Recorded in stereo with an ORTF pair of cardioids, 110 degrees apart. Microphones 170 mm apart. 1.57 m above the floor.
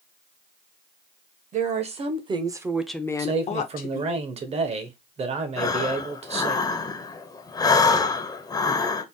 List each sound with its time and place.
1.5 s a woman speaking: 45° right, 1.4 m; by 4.2 s 70° left, 1.0 m
3.2 s a man speaking: 40° right, 1.2 m
5.6 s breathing: 25° left, 0.8 m